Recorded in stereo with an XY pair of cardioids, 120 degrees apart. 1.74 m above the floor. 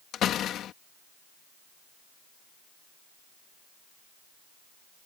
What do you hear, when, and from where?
0.1 s a door slam: 65° left